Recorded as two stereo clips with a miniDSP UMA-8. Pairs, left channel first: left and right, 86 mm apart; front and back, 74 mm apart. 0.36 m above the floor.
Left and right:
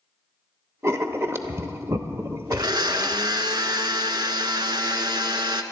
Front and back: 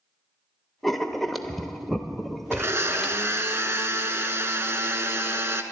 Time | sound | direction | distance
0.8 | writing | 85° right | 0.7 m
2.5 | a blender | 125° right | 0.8 m